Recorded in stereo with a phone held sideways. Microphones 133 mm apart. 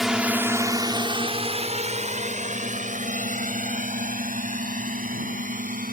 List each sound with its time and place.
0.0 s a drone: 5° right (ahead or behind); by 5.9 s 85° right